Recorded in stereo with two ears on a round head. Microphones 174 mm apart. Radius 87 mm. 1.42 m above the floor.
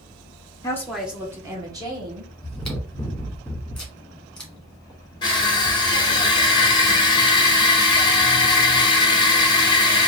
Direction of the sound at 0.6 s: 20° left (ahead or behind).